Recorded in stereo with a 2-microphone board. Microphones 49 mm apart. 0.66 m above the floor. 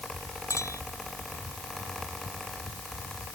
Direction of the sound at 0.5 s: 90° left.